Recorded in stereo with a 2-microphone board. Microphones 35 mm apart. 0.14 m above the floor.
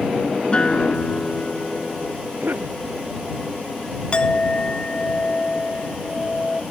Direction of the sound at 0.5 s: 30° left (ahead or behind).